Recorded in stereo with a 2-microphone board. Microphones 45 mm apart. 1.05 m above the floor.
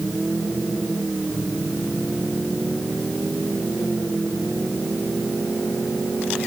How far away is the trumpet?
No trumpet in this recording.